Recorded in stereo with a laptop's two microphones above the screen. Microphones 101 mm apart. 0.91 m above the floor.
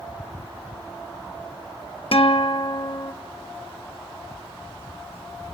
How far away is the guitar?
About 0.7 m.